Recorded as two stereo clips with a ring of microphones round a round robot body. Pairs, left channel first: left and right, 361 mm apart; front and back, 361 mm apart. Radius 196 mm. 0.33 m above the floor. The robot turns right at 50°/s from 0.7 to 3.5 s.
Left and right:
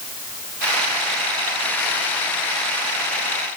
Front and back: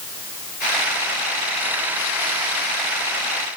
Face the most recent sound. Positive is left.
No sound to turn to.